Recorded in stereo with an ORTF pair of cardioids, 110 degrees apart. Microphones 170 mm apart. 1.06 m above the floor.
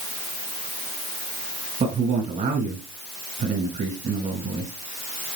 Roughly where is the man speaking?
Ahead right.